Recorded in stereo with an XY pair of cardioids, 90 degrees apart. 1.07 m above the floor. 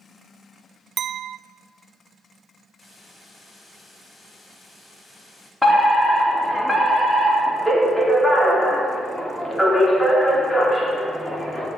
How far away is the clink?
About 0.5 m.